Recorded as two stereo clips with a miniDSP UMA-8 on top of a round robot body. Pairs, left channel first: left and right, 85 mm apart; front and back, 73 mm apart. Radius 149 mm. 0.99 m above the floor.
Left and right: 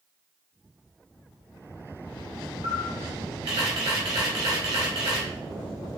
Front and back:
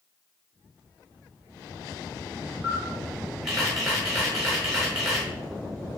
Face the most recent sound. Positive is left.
turn(degrees=-95)